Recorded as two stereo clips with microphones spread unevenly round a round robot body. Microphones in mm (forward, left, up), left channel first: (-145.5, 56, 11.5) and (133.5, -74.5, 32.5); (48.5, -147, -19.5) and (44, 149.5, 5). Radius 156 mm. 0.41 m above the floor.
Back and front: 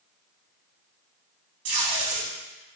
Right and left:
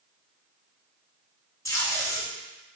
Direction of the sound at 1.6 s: 10° right.